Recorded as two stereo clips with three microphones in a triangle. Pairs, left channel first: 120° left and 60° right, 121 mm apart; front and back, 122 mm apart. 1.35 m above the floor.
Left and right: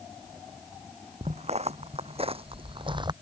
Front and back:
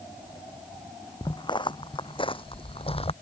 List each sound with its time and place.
1.2 s footsteps: 50° right; by 3.1 s 20° right